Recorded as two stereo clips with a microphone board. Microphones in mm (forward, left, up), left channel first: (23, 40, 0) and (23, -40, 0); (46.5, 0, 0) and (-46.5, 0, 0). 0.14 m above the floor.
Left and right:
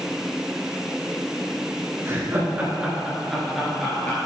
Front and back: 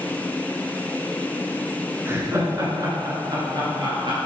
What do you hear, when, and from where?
2.0 s laughter: 130° right, 2.0 m; by 4.2 s 165° left, 3 m